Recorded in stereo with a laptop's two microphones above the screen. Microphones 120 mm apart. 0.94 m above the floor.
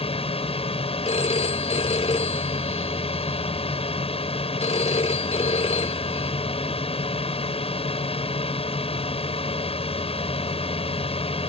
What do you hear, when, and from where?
0.0 s a drone: 55° left (ahead or behind)
1.1 s a phone ringing: 60° left (ahead or behind)